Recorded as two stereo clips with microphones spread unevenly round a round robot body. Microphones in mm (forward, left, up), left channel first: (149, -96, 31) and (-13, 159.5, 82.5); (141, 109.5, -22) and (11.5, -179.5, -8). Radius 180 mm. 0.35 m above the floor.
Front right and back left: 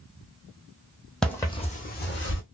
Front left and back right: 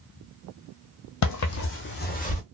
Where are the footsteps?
35° left, 0.9 m; by 2.4 s 5° right, 1.2 m.